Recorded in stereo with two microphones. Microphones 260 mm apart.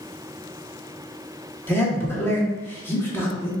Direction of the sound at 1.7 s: 10° left (ahead or behind).